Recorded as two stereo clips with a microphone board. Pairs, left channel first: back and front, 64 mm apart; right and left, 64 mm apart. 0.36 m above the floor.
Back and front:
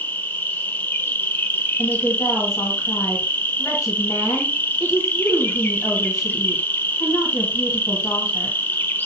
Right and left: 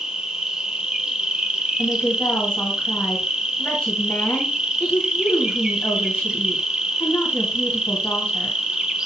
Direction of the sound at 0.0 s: 160° left.